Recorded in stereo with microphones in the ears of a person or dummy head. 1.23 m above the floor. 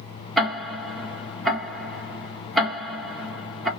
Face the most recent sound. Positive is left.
turn(degrees=0)  # may be behind; listen again after turning